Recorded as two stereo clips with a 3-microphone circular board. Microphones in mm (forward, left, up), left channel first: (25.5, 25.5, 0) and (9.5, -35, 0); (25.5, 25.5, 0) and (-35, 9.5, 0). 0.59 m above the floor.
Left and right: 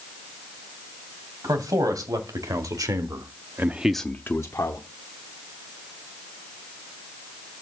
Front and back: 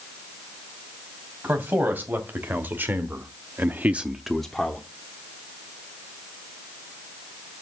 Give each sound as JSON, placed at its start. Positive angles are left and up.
{"t": 1.4, "sound": "a man speaking", "azimuth_deg": -105, "distance_m": 3.0}